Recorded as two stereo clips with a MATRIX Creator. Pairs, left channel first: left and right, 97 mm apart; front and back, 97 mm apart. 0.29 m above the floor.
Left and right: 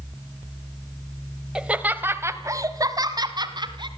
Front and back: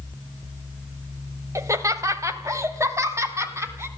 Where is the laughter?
165° right, 1.5 m; by 3.9 s 120° right, 3 m.